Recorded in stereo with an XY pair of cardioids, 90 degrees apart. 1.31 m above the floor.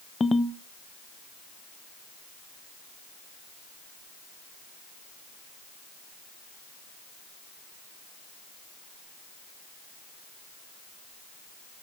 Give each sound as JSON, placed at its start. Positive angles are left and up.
{"t": 0.2, "sound": "a ringtone", "azimuth_deg": 35, "distance_m": 0.7}